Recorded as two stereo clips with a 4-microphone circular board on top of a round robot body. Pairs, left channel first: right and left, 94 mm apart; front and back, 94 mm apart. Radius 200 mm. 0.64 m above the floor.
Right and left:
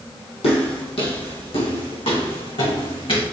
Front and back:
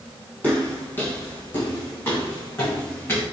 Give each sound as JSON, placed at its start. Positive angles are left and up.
{"t": 0.4, "sound": "footsteps", "azimuth_deg": -75, "distance_m": 1.8}